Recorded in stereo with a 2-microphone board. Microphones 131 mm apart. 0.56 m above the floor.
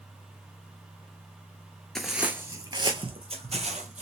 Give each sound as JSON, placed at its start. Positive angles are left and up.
{"t": 1.9, "sound": "footsteps", "side_deg": 5, "distance_m": 0.6}